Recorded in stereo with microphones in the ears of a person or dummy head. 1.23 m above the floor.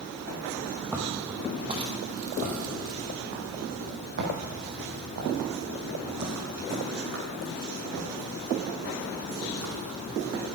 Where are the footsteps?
10° right (ahead or behind), 2 m; by 10.4 s 75° right (ahead or behind), 6.5 m.